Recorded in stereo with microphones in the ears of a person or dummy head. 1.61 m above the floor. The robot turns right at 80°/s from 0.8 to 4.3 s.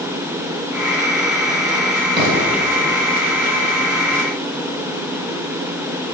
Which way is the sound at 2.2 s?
20° right.